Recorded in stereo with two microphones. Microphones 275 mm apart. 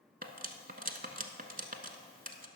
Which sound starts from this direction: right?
Cutlery clinking, at 0.2 s.